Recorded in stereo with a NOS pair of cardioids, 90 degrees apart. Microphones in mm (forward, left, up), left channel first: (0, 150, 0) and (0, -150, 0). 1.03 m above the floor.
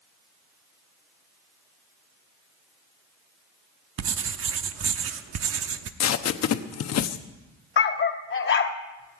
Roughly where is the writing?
Ahead right.